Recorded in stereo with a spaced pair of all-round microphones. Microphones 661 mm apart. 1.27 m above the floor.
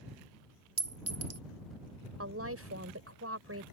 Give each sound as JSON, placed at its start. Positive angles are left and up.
{"t": 0.8, "sound": "a clink", "side_deg": -25}
{"t": 2.2, "sound": "a woman speaking", "side_deg": -20}